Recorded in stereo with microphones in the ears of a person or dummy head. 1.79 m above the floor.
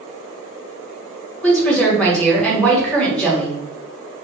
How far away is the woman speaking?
About 1.0 m.